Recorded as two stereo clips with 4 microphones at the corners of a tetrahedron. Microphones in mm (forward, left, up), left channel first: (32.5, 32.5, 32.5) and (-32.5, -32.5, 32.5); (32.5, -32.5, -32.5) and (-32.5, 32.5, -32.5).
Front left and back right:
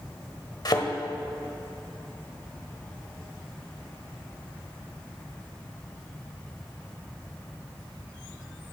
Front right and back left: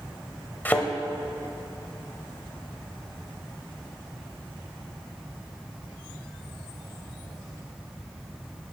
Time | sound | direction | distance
0.7 | a thud | 20° left | 1.1 m